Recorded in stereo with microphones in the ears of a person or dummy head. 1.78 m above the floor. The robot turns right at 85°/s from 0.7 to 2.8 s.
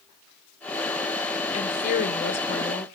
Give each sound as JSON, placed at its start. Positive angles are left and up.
{"t": 1.5, "sound": "a woman speaking", "azimuth_deg": 45, "distance_m": 1.1}